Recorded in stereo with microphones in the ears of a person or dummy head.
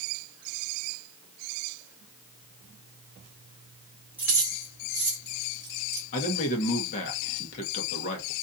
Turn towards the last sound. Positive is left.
turn(degrees=40)  # may be behind; listen again after turning